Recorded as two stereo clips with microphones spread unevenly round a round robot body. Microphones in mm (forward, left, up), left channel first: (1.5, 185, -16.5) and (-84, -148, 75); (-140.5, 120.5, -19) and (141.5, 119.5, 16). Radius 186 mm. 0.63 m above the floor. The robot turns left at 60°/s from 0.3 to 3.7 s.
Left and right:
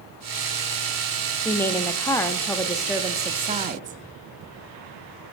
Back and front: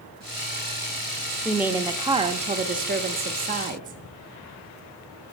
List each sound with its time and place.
1.4 s a woman speaking: 105° left, 0.6 m; by 4.0 s 30° right, 0.6 m